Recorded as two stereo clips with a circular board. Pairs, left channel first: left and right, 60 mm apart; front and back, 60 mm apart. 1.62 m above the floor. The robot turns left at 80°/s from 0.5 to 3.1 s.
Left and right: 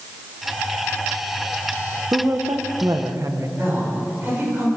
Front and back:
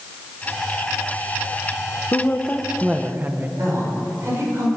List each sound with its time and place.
2.1 s a woman speaking: 45° right, 1.3 m; by 3.5 s 120° right, 1.3 m
3.6 s a woman speaking: 140° right, 7 m